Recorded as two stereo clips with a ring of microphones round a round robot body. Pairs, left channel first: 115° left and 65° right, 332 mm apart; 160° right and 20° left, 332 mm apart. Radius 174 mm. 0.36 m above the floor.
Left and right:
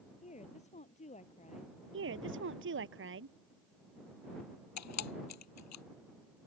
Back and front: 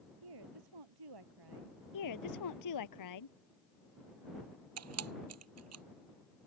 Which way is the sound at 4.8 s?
70° left.